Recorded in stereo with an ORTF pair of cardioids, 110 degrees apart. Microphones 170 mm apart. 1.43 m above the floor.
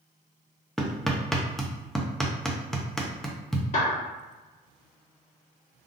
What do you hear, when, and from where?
0.8 s hammering: straight ahead, 0.6 m
3.7 s a clap: 45° left, 1.8 m